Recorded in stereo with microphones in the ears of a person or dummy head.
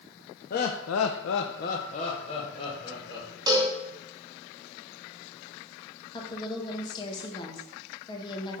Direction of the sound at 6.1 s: 25° left (ahead or behind).